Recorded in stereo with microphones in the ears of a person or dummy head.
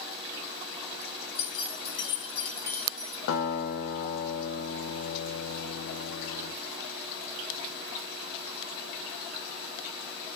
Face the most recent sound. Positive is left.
turn(degrees=75)  # may be behind; listen again after turning